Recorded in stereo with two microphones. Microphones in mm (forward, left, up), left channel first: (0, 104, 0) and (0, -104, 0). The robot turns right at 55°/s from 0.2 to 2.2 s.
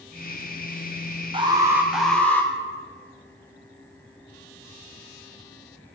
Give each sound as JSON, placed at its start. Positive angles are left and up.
{"t": 1.3, "sound": "an alarm", "azimuth_deg": -40, "distance_m": 0.7}